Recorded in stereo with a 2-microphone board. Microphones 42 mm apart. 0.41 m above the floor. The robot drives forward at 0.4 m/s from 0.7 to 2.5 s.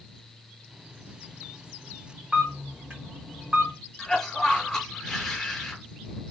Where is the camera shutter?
30° right (ahead or behind), 1.8 m; by 3.7 s 25° right (ahead or behind), 1.8 m.